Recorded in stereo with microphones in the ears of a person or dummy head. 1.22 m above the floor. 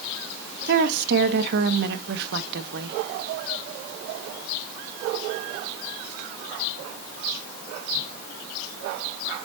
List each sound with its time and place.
0.7 s a woman speaking: 60° right (ahead or behind), 0.9 m